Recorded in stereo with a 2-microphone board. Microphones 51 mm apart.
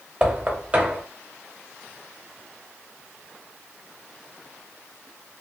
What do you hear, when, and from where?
0.2 s knocking: 25° right (ahead or behind), 1.1 m